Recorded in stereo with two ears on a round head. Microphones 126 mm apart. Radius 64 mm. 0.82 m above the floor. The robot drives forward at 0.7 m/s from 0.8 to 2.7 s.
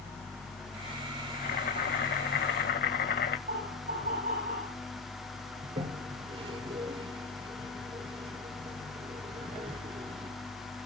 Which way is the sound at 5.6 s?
40° right (ahead or behind).